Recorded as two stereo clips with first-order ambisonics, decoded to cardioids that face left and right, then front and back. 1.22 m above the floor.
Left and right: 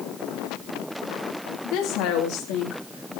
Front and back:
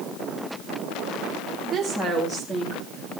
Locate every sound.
1.6 s a woman speaking: 90° left, 2 m; by 3.2 s 75° left, 3 m